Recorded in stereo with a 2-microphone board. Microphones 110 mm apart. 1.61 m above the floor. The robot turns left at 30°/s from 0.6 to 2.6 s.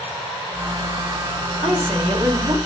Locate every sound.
1.6 s a woman speaking: 65° right (ahead or behind), 1.3 m; by 2.6 s 40° right (ahead or behind), 1.3 m